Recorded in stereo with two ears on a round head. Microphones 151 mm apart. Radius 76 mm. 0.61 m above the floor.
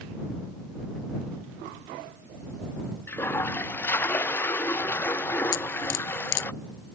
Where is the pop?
I don't hear a pop.